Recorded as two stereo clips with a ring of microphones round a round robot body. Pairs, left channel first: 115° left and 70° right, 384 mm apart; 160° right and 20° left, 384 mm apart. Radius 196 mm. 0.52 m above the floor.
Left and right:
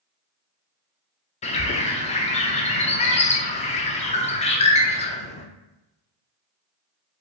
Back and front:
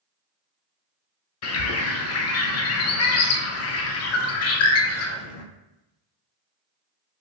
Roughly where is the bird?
Behind.